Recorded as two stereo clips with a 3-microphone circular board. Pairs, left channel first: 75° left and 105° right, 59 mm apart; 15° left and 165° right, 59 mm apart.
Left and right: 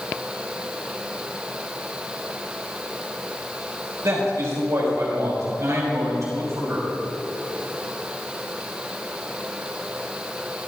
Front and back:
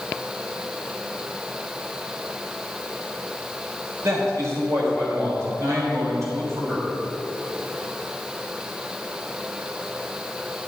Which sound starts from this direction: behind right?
A man speaking, at 4.0 s.